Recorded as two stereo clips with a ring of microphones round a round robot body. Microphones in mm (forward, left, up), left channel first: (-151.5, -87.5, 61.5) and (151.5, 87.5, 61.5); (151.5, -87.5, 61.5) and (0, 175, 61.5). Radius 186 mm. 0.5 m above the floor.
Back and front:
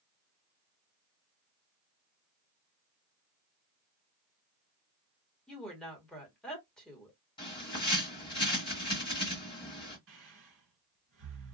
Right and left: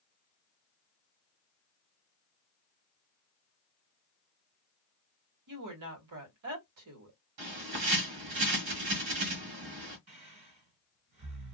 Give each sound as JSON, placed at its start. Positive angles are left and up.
{"t": 5.5, "sound": "a woman speaking", "azimuth_deg": 125, "distance_m": 1.7}
{"t": 7.4, "sound": "a bird", "azimuth_deg": 135, "distance_m": 1.4}
{"t": 10.1, "sound": "breathing", "azimuth_deg": 85, "distance_m": 1.9}